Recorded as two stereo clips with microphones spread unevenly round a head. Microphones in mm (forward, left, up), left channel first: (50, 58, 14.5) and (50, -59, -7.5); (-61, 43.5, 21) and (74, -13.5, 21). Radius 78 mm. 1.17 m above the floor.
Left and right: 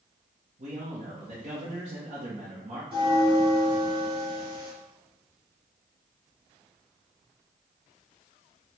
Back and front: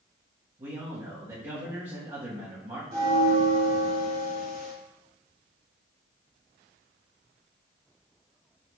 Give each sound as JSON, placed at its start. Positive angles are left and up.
{"t": 0.6, "sound": "a man speaking", "azimuth_deg": -75, "distance_m": 1.2}
{"t": 2.9, "sound": "a bell", "azimuth_deg": -50, "distance_m": 2.0}